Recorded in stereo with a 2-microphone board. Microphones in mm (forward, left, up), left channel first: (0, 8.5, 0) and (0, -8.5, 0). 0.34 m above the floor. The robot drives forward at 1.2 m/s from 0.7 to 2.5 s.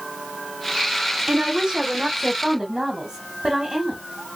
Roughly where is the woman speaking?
Right.